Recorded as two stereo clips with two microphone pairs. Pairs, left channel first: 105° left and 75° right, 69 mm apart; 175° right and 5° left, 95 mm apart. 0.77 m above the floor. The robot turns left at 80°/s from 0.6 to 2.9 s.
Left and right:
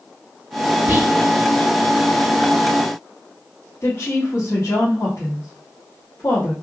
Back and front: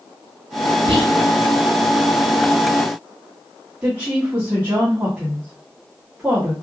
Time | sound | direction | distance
0.9 | whispering | 20° right | 1.2 m
3.8 | a woman speaking | 80° left | 1.4 m